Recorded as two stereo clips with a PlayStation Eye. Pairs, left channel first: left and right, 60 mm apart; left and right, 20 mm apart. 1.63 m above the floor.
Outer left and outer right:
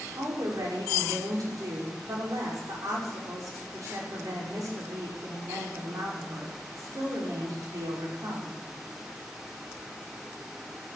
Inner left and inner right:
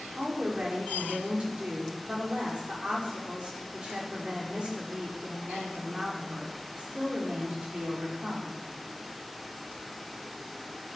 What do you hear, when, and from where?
0.2 s a woman speaking: 75° right (ahead or behind), 5 m